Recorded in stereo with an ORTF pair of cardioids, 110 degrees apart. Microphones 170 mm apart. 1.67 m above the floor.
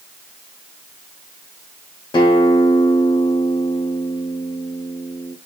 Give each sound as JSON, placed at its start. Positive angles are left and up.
{"t": 2.1, "sound": "a guitar", "azimuth_deg": 30, "distance_m": 1.1}